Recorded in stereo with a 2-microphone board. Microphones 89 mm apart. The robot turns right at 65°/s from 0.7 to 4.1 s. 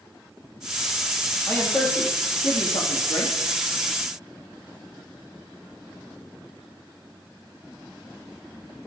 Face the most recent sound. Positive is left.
turn(degrees=-175)